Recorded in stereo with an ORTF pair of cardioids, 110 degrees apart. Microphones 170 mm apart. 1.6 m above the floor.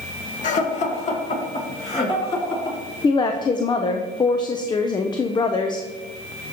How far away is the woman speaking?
About 0.6 m.